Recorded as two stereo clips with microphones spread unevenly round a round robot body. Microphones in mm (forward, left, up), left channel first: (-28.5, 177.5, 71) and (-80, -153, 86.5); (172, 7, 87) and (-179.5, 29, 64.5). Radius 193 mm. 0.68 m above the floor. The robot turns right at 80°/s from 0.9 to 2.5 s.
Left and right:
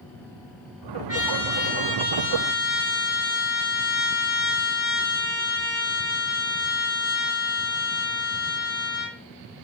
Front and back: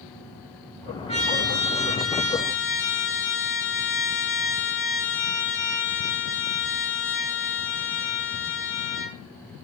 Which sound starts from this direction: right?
A trumpet, at 1.1 s.